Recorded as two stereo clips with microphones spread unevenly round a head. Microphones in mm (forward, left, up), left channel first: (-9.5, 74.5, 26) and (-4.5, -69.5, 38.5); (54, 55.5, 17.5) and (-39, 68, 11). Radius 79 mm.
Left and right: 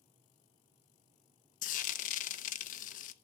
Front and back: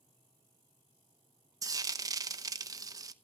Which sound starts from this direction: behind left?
Frying, at 1.6 s.